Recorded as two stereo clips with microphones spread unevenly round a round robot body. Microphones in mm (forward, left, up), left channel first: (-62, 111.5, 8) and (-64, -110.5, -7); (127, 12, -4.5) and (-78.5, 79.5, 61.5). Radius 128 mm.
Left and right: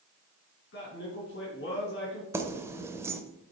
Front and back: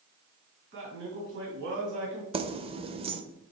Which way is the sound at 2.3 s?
130° right.